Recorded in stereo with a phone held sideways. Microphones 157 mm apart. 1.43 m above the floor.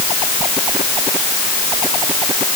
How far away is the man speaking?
I don't hear a man speaking.